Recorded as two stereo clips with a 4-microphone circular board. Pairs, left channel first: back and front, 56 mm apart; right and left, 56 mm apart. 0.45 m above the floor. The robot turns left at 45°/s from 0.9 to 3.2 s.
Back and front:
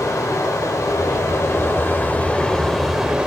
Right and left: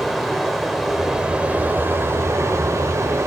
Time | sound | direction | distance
0.0 | running water | straight behind | 0.7 m